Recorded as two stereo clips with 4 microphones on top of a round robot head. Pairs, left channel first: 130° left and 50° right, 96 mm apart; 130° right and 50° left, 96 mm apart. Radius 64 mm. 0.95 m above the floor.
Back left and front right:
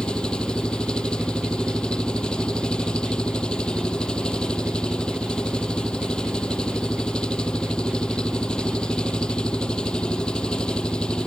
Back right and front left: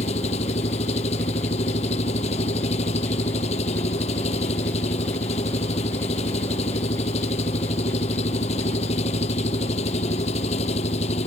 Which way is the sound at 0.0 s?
150° right.